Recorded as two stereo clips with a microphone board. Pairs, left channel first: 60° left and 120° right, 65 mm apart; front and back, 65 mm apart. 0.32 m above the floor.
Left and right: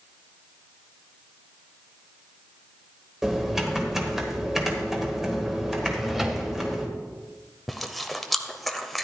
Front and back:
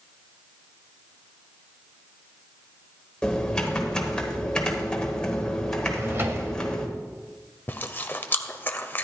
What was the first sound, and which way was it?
Typing on a keyboard, 50° right.